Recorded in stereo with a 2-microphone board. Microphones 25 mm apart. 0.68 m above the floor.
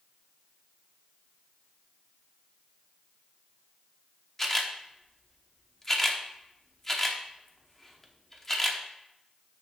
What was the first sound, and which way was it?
A camera shutter, 15° left (ahead or behind).